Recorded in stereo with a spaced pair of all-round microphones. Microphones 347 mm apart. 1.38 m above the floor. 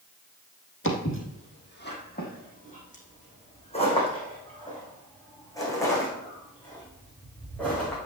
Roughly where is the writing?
I don't hear writing.